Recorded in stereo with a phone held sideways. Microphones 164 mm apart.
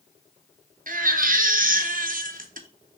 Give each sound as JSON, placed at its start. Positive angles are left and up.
{"t": 0.9, "sound": "a baby crying", "side_deg": -60, "distance_m": 0.6}